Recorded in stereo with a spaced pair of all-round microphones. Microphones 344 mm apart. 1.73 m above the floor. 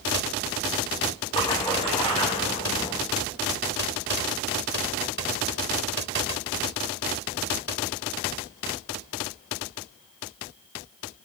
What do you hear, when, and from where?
1.3 s a splash: 15° left (ahead or behind), 4.5 m